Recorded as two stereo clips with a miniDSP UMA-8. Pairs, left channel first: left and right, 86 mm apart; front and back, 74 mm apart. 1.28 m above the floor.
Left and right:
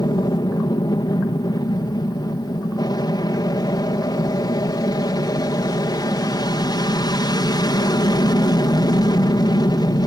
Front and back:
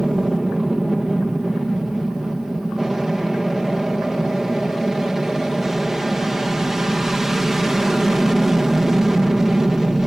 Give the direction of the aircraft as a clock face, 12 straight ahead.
9 o'clock.